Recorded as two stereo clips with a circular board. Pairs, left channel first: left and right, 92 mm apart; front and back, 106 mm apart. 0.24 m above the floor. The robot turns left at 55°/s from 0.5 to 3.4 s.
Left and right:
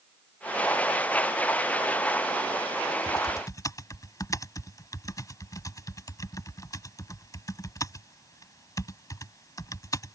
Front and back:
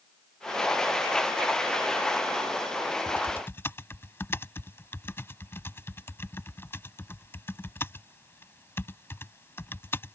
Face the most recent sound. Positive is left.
turn(degrees=60)